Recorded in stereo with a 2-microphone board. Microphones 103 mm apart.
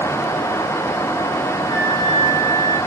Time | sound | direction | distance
1.7 | a flute | 50° left (ahead or behind) | 4 m